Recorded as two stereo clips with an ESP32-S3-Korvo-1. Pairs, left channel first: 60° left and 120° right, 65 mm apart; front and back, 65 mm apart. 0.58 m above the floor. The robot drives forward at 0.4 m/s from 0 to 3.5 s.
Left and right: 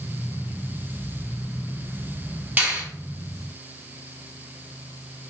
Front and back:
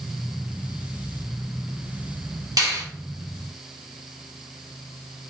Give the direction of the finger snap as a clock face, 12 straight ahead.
6 o'clock.